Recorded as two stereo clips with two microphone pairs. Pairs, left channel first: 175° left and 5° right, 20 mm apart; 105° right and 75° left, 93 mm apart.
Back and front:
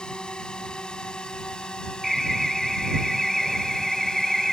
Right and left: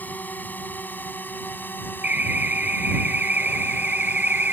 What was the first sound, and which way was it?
A drone, 175° right.